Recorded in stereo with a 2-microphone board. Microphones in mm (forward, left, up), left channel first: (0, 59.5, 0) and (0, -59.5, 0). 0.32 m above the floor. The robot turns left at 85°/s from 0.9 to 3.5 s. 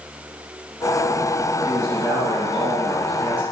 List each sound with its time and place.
1.6 s a man speaking: 20° right, 1.9 m; by 3.4 s 170° right, 1.9 m